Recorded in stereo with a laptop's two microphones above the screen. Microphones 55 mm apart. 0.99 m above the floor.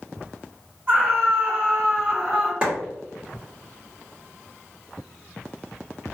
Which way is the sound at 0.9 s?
30° right (ahead or behind).